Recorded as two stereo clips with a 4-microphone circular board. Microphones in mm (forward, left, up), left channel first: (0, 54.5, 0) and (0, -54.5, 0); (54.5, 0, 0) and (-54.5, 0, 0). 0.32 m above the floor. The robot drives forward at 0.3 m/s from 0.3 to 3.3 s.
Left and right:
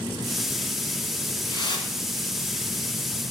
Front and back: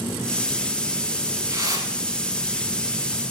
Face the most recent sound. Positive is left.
turn(degrees=140)